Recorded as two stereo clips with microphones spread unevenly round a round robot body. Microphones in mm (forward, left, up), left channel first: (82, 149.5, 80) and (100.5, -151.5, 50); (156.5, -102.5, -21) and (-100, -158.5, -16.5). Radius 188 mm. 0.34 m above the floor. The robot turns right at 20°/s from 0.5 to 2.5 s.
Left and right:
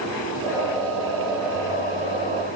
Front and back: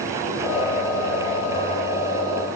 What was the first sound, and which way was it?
Only background noise.